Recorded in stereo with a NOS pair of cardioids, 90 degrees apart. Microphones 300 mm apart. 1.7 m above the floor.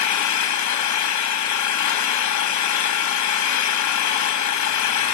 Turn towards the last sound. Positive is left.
turn(degrees=70)